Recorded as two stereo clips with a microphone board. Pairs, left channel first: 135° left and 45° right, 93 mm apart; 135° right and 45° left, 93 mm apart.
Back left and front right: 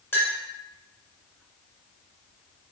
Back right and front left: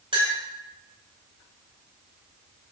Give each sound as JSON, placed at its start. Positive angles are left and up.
{"t": 0.1, "sound": "a clink", "azimuth_deg": 70, "distance_m": 2.5}